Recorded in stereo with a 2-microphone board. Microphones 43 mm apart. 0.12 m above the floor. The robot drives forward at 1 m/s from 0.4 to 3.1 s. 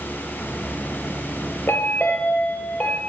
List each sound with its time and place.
1.7 s a chime: 55° left (ahead or behind), 1.7 m; by 3.0 s 40° left (ahead or behind), 2 m